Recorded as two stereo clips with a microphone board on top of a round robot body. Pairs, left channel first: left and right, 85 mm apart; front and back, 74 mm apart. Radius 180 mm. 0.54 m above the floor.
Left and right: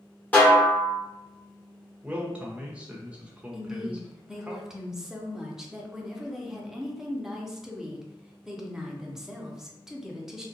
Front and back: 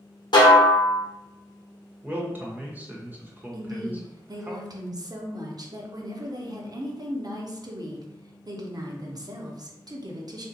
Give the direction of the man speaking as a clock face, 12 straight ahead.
5 o'clock.